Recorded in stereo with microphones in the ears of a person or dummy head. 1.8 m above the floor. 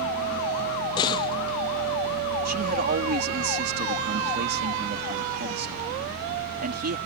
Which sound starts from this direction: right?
A man speaking, at 2.5 s.